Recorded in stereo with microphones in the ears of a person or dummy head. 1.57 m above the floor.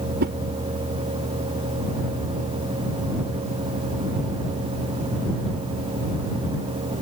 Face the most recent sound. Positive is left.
turn(degrees=-55)  # may be behind; listen again after turning